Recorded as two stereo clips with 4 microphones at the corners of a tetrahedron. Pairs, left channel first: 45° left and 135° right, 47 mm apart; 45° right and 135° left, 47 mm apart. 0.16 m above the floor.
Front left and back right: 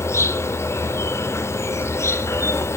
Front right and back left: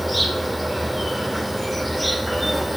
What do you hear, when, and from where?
0.0 s an insect: 45° left, 0.8 m